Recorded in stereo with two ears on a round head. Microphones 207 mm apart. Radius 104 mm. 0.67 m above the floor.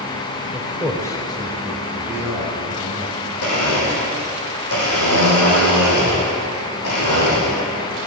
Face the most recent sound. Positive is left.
turn(degrees=75)  # may be behind; listen again after turning